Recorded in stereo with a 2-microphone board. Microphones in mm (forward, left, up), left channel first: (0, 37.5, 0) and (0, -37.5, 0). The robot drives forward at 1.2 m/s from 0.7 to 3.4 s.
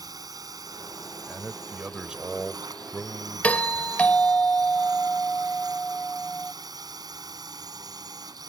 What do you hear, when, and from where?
0.0 s a drone: 60° right (ahead or behind)
1.3 s a man speaking: 10° right (ahead or behind)
3.4 s a doorbell: 20° left (ahead or behind)